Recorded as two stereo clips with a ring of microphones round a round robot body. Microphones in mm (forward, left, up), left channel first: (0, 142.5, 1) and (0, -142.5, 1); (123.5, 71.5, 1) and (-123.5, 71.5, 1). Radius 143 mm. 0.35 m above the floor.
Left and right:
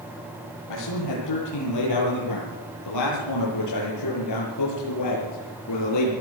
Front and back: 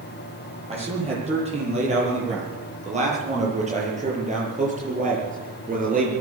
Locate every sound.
0.7 s a man speaking: 115° left, 9.5 m; by 6.1 s 125° left, 6.5 m